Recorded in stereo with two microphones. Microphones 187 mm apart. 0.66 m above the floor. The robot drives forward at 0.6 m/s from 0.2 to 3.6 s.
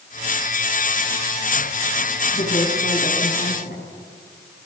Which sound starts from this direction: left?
A woman speaking, at 2.3 s.